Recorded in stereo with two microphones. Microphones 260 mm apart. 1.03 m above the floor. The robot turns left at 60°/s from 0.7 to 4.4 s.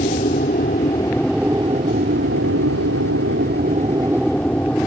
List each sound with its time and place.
0.0 s an aircraft: 35° left; by 4.9 s 175° left